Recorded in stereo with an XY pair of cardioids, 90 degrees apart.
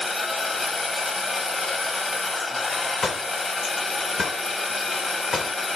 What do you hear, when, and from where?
0.0 s a machine running: 30° left, 1.6 m
3.0 s a door slam: 45° left, 1.8 m